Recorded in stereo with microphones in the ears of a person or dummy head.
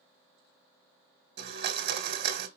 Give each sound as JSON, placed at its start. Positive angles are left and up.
{"t": 1.4, "sound": "a blender", "side_deg": -55, "distance_m": 1.1}